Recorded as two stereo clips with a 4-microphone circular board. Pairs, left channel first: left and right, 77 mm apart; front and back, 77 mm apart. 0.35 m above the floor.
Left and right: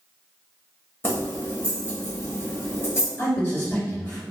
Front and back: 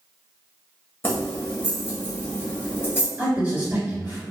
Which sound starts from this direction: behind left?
A man speaking, at 3.2 s.